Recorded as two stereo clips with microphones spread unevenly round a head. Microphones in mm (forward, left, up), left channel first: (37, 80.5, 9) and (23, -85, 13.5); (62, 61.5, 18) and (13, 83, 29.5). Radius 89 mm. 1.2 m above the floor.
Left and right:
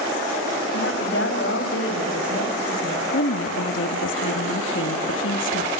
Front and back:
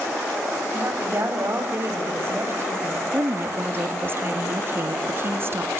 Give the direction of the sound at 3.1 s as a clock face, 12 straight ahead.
8 o'clock.